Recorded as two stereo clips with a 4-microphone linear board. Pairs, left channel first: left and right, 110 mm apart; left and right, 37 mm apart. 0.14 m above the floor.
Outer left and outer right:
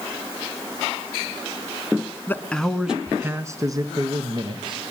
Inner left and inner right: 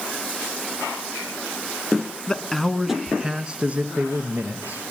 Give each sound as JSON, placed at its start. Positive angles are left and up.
{"t": 2.3, "sound": "a man speaking", "side_deg": 20, "distance_m": 1.2}